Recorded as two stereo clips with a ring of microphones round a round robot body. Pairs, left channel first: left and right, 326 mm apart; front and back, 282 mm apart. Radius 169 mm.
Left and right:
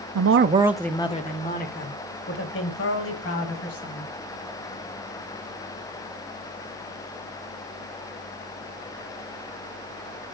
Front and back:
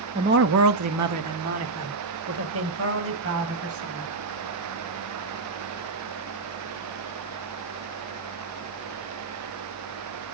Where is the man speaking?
115° right, 0.8 m; by 4.1 s 140° left, 5 m.